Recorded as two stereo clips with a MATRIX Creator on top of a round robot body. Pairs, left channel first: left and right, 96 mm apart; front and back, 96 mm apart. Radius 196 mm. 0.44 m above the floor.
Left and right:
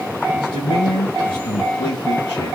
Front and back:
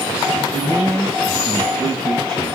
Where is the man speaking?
70° left, 3.5 m.